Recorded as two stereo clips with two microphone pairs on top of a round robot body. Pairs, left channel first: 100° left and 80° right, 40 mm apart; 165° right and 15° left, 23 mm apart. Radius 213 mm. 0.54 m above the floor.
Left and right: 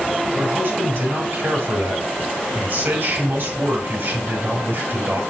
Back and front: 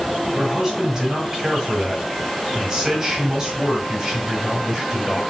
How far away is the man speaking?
About 4.5 m.